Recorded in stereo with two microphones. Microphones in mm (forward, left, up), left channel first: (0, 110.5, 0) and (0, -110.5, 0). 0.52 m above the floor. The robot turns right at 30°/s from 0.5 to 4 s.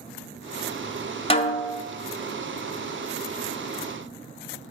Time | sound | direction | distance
1.3 | a snare drum | 25° left (ahead or behind) | 0.6 m